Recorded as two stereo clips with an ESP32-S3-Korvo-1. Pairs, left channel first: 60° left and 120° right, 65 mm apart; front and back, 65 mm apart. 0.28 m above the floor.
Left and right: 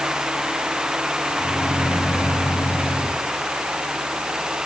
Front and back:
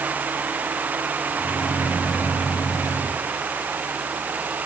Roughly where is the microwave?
Ahead.